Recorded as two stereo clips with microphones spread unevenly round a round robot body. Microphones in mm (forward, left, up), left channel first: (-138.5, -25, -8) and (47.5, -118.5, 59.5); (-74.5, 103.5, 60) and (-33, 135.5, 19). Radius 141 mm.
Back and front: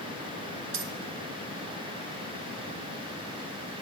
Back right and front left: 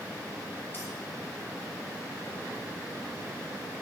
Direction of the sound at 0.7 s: 55° right.